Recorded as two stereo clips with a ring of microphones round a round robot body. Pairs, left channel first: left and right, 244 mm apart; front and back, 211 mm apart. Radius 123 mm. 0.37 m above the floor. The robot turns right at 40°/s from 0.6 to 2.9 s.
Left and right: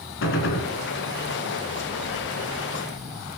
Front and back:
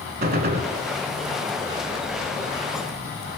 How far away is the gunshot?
About 0.8 m.